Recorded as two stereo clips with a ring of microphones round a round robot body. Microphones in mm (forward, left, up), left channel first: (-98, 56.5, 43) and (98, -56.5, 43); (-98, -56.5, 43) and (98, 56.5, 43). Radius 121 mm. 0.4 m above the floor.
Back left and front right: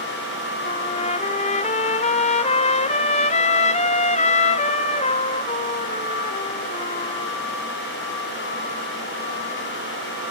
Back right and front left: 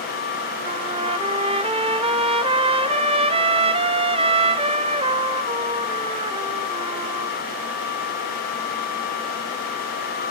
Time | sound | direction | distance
0.7 | a trumpet | 90° left | 0.8 m